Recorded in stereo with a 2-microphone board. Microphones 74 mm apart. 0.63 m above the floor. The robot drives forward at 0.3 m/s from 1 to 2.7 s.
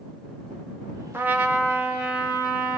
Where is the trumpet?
25° right (ahead or behind), 0.5 m; by 2.8 s 15° right (ahead or behind), 0.9 m.